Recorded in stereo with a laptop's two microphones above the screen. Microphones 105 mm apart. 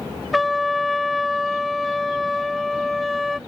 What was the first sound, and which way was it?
A trumpet, centre (ahead or behind).